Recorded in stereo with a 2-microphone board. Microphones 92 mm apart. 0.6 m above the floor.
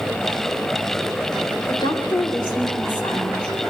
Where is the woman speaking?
55° left (ahead or behind), 3 m.